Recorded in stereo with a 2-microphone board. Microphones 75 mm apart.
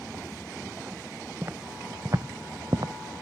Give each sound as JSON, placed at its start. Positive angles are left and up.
{"t": 1.4, "sound": "footsteps", "side_deg": -35, "distance_m": 1.2}